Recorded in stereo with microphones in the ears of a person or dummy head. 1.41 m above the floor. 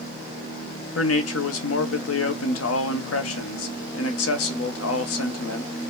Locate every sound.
0.9 s a man speaking: 75° left (ahead or behind), 0.7 m